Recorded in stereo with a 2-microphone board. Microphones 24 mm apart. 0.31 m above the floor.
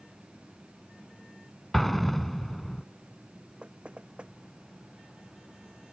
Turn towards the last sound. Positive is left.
turn(degrees=-45)  # may be behind; listen again after turning